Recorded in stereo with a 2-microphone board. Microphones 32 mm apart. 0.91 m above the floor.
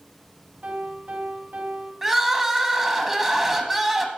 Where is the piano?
80° right, 2 m.